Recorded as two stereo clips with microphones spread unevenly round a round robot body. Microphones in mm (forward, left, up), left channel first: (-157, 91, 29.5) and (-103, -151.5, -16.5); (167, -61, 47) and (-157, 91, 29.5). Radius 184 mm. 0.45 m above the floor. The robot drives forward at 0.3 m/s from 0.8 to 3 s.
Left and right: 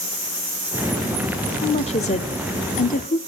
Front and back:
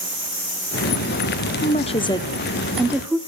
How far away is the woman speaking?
About 0.9 m.